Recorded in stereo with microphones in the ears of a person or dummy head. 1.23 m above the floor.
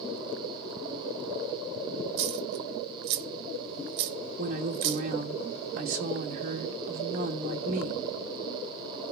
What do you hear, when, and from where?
2.2 s a dropped coin: 60° right (ahead or behind), 1.2 m
4.4 s a woman speaking: 45° right (ahead or behind), 2.0 m